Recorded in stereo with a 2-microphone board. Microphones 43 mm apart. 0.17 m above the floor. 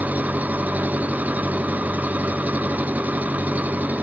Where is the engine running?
35° right (ahead or behind).